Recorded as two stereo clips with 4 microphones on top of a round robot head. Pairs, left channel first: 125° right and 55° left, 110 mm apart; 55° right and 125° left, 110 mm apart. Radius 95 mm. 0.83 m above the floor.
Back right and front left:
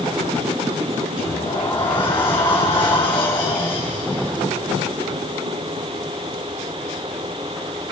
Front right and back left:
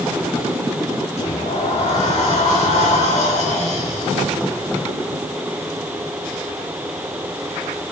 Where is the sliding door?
75° right, 5 m.